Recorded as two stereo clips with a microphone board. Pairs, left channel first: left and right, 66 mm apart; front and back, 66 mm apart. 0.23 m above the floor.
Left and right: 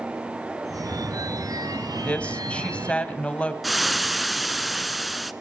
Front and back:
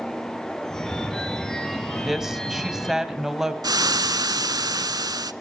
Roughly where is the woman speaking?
Left.